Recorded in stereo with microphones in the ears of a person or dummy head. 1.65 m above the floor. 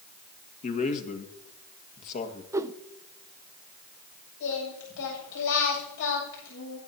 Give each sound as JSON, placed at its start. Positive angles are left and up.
{"t": 0.6, "sound": "a man speaking", "side_deg": 40, "distance_m": 1.9}
{"t": 2.5, "sound": "a whoosh", "side_deg": -15, "distance_m": 0.5}
{"t": 4.4, "sound": "singing", "side_deg": 70, "distance_m": 7.5}